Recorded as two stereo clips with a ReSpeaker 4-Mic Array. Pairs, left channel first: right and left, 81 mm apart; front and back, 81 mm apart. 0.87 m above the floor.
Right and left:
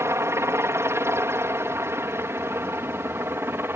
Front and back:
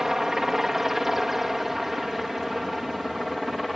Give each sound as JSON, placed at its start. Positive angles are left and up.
{"t": 0.0, "sound": "a helicopter", "azimuth_deg": 100}